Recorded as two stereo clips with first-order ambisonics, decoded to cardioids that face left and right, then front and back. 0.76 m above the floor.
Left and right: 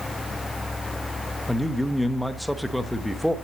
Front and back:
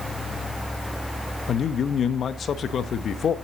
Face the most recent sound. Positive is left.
turn(degrees=5)